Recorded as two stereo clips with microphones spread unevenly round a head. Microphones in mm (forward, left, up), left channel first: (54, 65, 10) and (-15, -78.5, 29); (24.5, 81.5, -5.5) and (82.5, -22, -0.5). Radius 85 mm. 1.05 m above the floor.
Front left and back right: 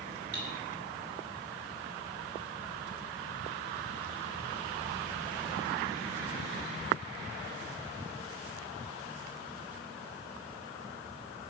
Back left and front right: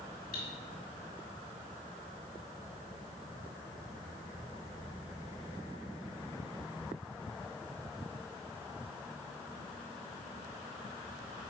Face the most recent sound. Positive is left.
turn(degrees=170)